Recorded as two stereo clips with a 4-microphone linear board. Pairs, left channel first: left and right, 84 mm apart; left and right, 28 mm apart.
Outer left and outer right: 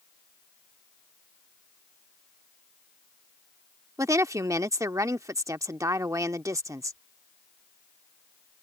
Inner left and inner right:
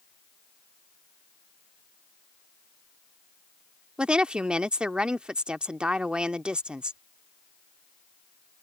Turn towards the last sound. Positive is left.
turn(degrees=-40)  # may be behind; listen again after turning